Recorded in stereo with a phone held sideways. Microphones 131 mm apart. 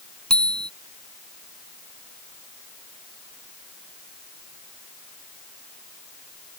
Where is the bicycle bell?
5° left (ahead or behind).